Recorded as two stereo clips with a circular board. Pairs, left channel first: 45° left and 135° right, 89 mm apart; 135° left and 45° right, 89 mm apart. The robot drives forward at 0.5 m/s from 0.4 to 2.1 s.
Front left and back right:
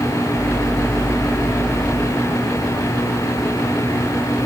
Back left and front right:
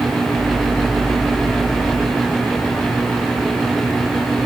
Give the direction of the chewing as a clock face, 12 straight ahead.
No chewing in this recording.